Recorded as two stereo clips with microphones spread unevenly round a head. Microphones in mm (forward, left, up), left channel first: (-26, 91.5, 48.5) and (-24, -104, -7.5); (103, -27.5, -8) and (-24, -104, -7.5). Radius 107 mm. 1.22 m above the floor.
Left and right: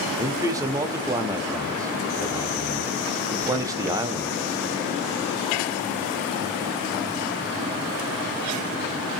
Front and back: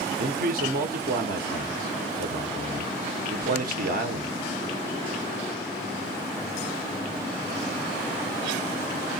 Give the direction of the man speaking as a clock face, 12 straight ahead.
5 o'clock.